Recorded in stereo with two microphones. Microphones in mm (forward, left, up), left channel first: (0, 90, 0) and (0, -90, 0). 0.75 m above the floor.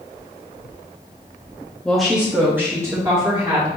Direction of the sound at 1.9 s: 5° left (ahead or behind).